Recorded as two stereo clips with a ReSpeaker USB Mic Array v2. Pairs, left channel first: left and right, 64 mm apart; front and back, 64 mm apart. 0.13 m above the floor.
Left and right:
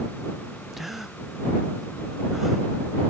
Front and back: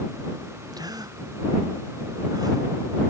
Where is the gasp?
175° right.